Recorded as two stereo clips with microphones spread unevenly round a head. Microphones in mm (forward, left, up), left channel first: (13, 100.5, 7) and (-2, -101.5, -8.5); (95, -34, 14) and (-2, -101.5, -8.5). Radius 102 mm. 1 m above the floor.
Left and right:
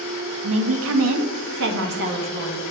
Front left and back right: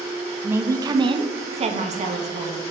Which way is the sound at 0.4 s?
75° right.